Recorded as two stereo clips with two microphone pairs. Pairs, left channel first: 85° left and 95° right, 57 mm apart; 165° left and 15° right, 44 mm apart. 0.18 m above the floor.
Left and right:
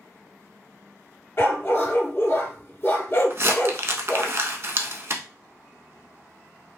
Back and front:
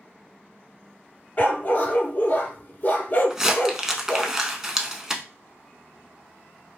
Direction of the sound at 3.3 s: 90° right.